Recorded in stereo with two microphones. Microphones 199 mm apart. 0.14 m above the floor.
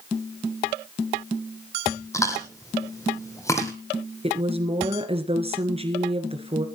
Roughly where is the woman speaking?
Right.